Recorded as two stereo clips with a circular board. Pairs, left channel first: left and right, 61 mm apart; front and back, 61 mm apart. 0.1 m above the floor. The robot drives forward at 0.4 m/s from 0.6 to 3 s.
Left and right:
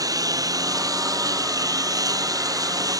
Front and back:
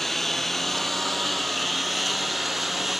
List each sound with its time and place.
0.0 s a lawn mower: 85° right; by 3.0 s 90° right